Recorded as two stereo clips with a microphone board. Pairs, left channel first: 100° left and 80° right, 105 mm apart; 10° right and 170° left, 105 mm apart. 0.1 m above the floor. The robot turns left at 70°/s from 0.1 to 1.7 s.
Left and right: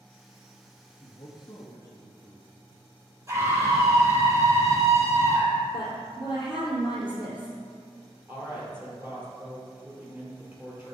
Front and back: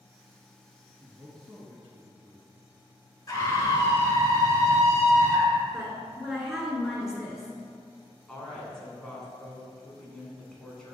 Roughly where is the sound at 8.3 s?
Right.